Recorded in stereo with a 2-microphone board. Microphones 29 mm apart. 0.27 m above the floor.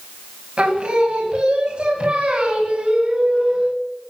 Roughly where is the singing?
Right.